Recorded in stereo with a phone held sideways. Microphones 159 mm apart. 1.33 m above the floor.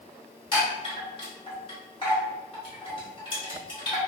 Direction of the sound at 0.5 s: 35° left (ahead or behind).